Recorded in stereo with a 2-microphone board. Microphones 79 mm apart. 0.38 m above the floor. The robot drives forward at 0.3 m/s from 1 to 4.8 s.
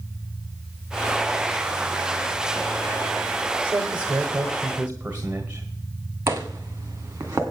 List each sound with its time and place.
3.6 s a man speaking: 25° right (ahead or behind), 1.2 m; by 5.7 s 20° right (ahead or behind), 1.4 m
6.3 s footsteps: 30° right (ahead or behind), 1.8 m